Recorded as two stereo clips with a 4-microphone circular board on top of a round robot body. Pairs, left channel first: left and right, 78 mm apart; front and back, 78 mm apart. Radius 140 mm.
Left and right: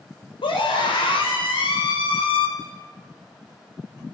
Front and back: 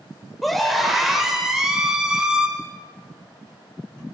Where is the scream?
90° left, 5.5 m; by 2.5 s 100° left, 6.5 m.